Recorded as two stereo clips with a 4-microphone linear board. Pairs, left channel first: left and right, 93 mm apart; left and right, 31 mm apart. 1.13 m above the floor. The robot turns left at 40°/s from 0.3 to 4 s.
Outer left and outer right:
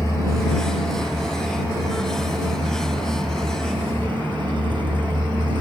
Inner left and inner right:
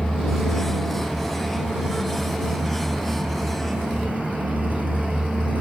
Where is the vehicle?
30° left; by 5.6 s 120° right.